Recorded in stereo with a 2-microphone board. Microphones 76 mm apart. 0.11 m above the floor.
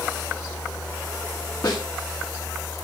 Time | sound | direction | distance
1.6 | a snare drum | 55° left (ahead or behind) | 8.5 m